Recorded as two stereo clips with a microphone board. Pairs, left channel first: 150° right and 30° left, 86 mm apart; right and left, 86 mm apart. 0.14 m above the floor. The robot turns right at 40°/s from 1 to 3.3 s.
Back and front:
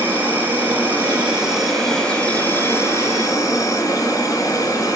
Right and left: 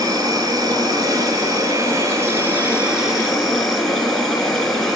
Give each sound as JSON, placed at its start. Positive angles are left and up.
{"t": 0.0, "sound": "an insect", "azimuth_deg": 90, "distance_m": 1.0}